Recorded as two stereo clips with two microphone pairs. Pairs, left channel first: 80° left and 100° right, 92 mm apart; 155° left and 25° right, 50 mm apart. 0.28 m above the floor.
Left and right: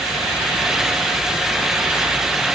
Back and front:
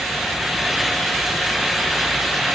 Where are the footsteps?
No footsteps in this recording.